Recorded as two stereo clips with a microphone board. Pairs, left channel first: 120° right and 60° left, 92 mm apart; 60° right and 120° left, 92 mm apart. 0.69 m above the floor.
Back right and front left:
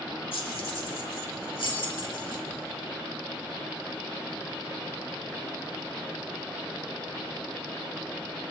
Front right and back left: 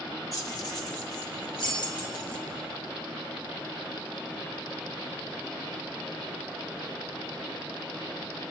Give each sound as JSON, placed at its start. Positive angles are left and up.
{"t": 0.3, "sound": "keys jangling", "azimuth_deg": -110, "distance_m": 1.5}